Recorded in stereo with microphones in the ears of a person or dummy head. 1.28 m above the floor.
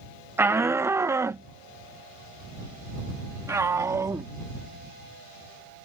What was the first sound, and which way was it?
A shout, 5° right (ahead or behind).